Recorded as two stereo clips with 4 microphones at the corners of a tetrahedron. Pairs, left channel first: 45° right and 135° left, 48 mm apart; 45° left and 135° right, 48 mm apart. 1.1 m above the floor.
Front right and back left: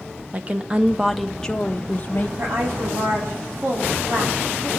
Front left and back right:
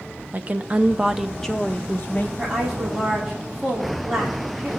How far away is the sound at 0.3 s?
About 0.8 m.